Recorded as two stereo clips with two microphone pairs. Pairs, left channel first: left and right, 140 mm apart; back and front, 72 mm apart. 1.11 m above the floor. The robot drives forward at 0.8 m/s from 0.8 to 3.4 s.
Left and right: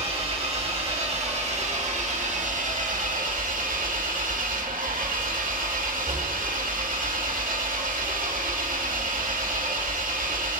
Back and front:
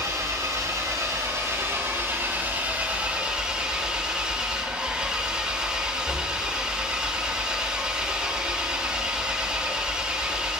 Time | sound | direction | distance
0.0 | an engine running | 45° right | 4 m